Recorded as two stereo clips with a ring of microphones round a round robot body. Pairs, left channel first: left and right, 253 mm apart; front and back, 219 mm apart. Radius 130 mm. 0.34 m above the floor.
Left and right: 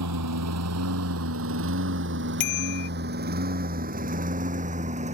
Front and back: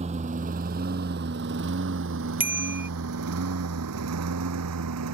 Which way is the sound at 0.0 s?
115° right.